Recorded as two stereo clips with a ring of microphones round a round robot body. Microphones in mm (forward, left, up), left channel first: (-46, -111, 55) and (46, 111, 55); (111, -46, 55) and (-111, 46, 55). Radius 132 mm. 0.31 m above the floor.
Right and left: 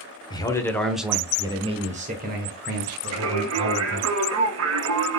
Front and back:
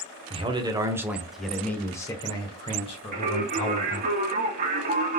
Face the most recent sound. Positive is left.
turn(degrees=100)